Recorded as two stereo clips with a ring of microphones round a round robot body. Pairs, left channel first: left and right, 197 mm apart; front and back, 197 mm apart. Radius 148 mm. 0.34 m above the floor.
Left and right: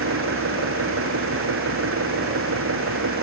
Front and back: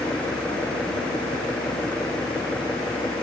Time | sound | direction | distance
0.0 | an engine running | 85° right | ?